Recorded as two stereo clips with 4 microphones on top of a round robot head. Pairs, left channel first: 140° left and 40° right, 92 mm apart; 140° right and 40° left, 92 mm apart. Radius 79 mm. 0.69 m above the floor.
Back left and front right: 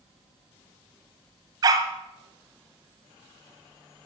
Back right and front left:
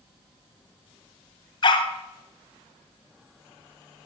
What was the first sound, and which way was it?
A dog barking, 90° right.